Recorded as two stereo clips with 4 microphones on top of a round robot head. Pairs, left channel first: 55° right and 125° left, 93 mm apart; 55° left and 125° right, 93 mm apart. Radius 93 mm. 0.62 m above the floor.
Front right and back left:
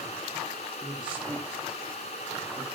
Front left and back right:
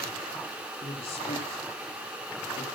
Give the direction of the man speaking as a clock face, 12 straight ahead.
10 o'clock.